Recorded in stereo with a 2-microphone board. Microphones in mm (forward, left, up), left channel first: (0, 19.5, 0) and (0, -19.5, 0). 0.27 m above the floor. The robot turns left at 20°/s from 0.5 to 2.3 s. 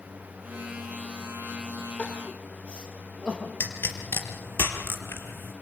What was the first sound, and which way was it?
Crying, 25° left (ahead or behind).